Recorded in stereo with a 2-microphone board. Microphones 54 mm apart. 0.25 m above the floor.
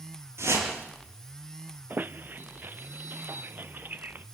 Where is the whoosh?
55° right (ahead or behind), 5.5 m.